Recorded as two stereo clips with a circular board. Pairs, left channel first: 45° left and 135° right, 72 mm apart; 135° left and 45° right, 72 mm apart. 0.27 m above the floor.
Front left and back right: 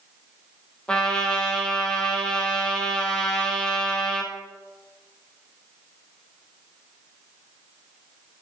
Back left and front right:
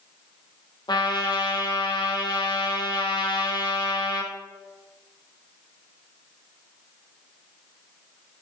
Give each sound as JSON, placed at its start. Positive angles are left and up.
{"t": 0.9, "sound": "a trumpet", "azimuth_deg": 125, "distance_m": 1.9}